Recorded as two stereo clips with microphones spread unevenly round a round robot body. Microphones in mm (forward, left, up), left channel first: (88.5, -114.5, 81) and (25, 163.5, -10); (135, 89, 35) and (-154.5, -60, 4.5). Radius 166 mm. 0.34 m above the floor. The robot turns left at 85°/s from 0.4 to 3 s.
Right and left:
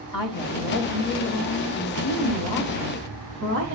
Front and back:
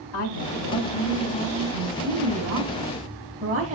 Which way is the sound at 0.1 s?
5° left.